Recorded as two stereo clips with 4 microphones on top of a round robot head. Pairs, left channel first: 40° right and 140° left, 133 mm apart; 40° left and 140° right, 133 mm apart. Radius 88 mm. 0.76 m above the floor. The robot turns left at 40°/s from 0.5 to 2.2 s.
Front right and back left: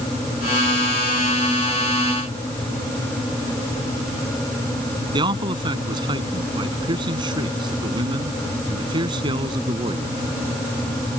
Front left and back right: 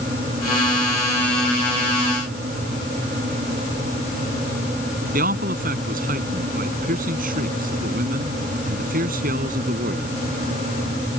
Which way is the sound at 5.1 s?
160° right.